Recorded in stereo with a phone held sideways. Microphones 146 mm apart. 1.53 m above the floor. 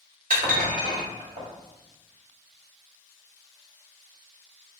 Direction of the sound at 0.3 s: 60° right (ahead or behind).